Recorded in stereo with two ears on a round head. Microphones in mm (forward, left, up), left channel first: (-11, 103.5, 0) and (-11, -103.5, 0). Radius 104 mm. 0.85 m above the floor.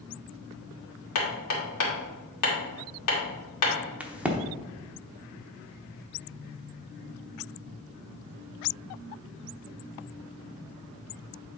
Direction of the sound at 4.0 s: 5° right (ahead or behind).